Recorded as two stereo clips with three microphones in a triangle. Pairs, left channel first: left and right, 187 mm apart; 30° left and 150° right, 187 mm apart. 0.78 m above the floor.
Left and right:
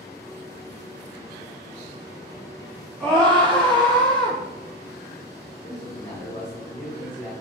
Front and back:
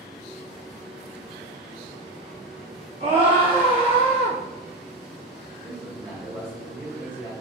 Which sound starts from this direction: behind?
A scream, at 3.0 s.